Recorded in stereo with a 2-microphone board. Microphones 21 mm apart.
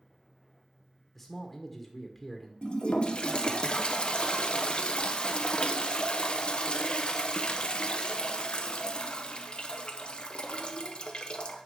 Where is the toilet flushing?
45° left (ahead or behind), 0.8 m.